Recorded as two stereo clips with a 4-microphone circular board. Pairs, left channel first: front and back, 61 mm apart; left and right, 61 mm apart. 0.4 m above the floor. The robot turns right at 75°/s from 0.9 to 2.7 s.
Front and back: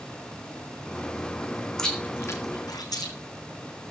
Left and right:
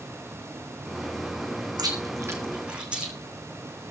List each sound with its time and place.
1.8 s chewing: 85° right, 4 m; by 3.1 s 15° right, 4 m